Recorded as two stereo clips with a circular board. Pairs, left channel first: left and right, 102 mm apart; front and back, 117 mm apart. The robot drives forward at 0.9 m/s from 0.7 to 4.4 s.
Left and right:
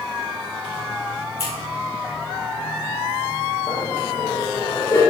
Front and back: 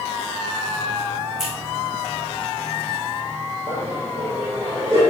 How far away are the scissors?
About 5.5 m.